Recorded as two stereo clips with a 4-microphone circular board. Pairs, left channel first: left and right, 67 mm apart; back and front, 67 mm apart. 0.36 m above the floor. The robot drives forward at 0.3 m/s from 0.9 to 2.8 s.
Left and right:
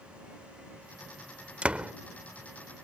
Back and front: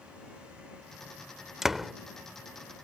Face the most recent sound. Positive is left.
turn(degrees=-135)